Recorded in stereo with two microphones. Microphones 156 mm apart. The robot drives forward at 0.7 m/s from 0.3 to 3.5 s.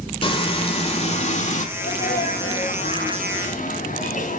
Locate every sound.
0.2 s frying: 35° left (ahead or behind), 1.9 m; by 1.7 s 50° left (ahead or behind), 1.4 m
1.8 s a sneeze: 75° left (ahead or behind), 3 m; by 4.4 s 55° left (ahead or behind), 3.5 m